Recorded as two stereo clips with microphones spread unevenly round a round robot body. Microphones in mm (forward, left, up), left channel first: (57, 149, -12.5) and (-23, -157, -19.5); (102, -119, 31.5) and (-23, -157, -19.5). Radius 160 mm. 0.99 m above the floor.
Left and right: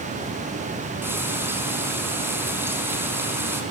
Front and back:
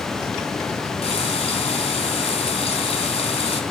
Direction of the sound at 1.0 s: 20° right.